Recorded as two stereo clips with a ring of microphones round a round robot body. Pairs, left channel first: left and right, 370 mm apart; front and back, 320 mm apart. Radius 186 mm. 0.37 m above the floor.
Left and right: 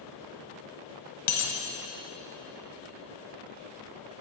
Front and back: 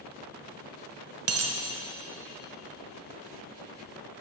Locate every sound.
1.3 s a dropped coin: 135° left, 1.2 m